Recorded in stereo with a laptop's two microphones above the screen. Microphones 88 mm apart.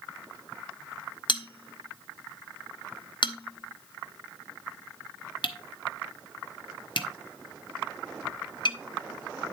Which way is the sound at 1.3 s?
60° left (ahead or behind).